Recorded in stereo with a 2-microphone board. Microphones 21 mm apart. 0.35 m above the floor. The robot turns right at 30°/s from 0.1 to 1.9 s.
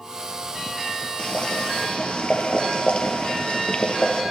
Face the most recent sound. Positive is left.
turn(degrees=70)  # may be behind; listen again after turning